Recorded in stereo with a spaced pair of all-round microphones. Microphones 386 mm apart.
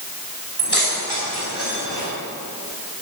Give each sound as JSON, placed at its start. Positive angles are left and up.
{"t": 0.6, "sound": "keys jangling", "side_deg": -80, "distance_m": 4.0}